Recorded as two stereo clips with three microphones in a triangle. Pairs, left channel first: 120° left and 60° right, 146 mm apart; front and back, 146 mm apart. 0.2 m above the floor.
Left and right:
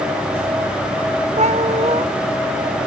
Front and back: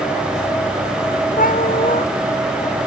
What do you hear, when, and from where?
1.4 s a cat meowing: 20° right